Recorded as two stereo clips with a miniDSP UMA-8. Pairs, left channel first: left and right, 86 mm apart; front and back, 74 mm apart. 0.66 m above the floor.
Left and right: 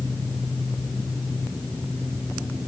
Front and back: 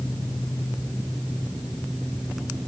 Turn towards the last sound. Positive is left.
No sound to turn to.